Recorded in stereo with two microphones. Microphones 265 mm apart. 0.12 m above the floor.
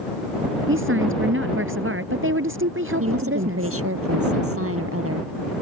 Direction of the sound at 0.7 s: 50° right (ahead or behind).